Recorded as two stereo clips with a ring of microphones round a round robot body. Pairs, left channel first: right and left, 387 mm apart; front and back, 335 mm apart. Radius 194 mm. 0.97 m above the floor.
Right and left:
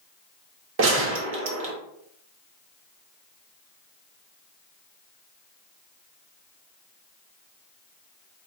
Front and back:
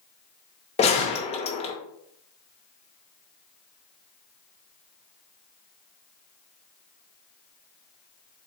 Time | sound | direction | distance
0.8 | a gunshot | 60° left | 0.7 m